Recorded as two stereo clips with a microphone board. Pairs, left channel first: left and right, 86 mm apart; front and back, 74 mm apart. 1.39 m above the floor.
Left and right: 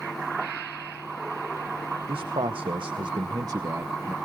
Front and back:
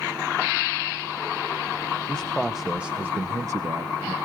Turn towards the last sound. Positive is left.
turn(degrees=-155)